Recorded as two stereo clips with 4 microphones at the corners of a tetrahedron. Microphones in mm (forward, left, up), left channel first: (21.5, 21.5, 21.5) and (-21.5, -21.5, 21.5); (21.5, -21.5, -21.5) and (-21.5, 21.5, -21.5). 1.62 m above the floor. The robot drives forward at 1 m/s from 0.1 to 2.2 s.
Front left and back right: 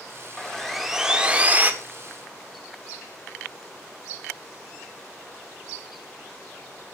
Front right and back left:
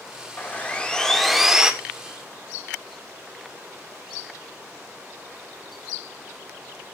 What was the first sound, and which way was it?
Sawing, 25° right.